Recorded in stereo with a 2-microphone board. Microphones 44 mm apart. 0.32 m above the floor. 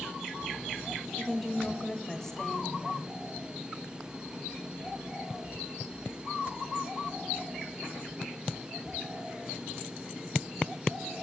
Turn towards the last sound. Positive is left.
turn(degrees=10)  # may be behind; listen again after turning